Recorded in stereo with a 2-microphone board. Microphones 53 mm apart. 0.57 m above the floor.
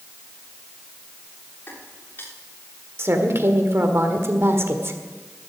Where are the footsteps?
40° left (ahead or behind), 6 m.